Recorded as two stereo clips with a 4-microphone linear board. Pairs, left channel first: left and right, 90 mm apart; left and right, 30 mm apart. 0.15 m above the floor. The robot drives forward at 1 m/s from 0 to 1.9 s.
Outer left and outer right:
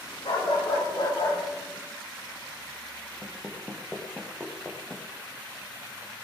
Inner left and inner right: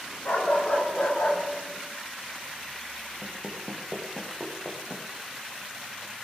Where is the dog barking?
75° left (ahead or behind), 9 m; by 1.4 s 70° left (ahead or behind), 9.5 m.